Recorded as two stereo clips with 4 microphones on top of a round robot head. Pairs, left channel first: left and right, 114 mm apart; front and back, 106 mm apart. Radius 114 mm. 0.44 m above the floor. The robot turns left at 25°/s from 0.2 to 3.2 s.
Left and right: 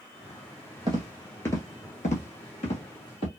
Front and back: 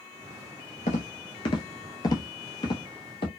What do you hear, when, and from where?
0.9 s footsteps: 25° right, 0.6 m; by 3.3 s 40° left, 1.3 m